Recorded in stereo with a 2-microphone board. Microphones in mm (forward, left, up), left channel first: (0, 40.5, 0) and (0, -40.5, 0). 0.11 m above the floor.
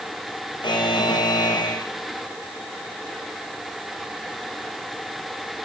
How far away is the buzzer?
About 6 m.